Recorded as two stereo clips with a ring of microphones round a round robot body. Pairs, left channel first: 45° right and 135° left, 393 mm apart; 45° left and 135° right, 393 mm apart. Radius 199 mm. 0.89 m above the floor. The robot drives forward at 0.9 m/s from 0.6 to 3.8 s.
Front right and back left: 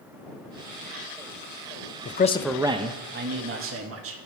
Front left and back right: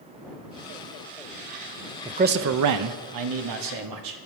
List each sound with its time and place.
2.0 s a man speaking: 60° right, 0.6 m; by 4.2 s 170° right, 1.5 m